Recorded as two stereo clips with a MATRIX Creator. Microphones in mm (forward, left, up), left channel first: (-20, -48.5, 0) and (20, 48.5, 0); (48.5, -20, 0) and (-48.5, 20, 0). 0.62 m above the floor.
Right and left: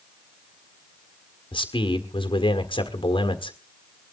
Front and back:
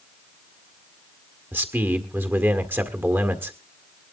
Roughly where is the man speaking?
Behind right.